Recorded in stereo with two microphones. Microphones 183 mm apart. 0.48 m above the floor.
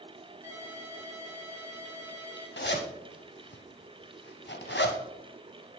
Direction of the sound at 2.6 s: 80° left.